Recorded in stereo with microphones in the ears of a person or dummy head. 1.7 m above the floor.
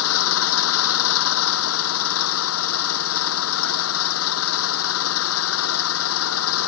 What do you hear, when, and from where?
0.0 s an engine running: 85° left